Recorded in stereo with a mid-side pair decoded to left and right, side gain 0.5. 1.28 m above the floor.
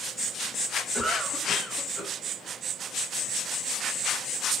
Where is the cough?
5° right, 7 m.